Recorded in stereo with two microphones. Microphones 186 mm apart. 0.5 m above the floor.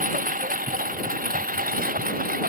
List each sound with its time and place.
0.0 s a lawn mower: 45° right (ahead or behind); by 2.5 s 50° right (ahead or behind)